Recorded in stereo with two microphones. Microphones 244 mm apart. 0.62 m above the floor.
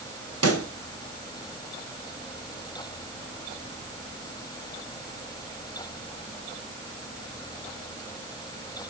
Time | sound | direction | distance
0.4 | a pop | 85° right | 2.5 m